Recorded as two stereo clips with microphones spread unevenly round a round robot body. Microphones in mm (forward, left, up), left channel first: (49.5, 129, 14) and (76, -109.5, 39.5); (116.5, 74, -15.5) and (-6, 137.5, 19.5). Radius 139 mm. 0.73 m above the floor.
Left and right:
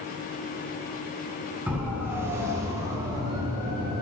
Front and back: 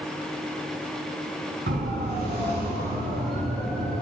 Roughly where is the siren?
Behind.